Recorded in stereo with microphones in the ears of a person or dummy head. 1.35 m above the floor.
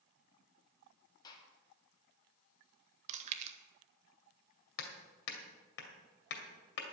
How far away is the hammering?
About 2 m.